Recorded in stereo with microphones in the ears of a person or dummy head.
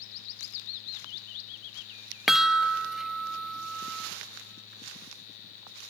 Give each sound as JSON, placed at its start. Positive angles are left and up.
{"t": 2.3, "sound": "a chime", "side_deg": 0, "distance_m": 0.6}